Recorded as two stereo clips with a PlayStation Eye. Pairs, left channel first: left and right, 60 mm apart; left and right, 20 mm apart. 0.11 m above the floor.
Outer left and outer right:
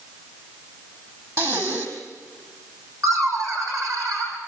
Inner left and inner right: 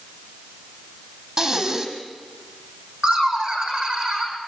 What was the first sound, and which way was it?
Breathing, 45° right (ahead or behind).